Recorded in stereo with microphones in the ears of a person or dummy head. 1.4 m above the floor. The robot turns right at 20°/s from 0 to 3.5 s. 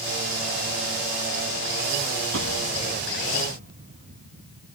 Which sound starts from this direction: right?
An explosion, at 2.3 s.